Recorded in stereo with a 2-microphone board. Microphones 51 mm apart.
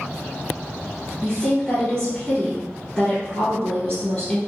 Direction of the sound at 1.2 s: 20° left (ahead or behind).